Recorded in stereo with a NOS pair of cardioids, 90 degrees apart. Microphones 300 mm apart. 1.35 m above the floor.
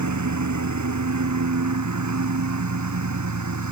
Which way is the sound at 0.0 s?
70° right.